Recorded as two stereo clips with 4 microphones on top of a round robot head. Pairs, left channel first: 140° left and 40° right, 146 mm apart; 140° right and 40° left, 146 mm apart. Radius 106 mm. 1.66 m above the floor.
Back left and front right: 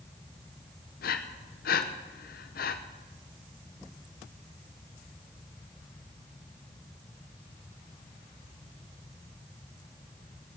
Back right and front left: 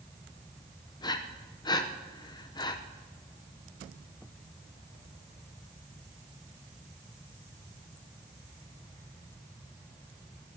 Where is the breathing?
160° left, 0.8 m.